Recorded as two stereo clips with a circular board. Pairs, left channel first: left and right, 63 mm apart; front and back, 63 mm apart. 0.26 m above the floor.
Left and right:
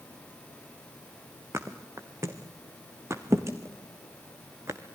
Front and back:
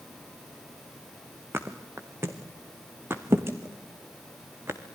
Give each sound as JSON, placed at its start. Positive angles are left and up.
{"t": 1.5, "sound": "a thud", "azimuth_deg": -130, "distance_m": 2.0}